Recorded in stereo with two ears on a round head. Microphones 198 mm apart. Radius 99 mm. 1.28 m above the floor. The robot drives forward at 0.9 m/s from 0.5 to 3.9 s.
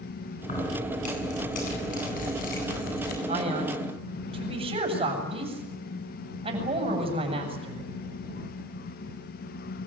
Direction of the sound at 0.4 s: 35° left (ahead or behind).